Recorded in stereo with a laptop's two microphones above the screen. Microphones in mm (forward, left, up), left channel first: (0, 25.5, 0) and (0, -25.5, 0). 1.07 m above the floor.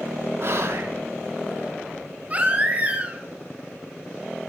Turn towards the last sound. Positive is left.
turn(degrees=-30)  # may be behind; listen again after turning